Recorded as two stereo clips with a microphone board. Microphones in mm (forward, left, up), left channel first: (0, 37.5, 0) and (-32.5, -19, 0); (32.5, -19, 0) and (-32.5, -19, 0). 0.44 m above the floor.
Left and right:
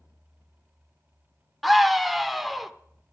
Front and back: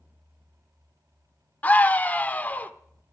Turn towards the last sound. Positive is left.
turn(degrees=-35)